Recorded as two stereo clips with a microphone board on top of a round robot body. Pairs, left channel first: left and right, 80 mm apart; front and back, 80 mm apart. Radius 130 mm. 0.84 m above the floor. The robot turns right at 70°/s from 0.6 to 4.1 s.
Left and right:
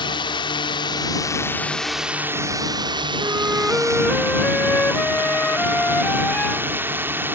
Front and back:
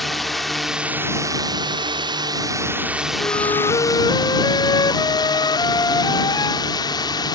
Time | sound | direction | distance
0.0 | a drone | 90° left | ?
3.2 | a flute | 40° right | ?